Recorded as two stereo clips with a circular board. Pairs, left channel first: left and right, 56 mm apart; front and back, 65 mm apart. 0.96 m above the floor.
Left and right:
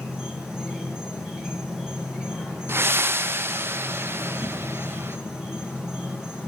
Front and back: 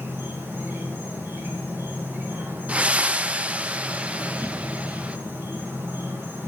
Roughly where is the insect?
Behind.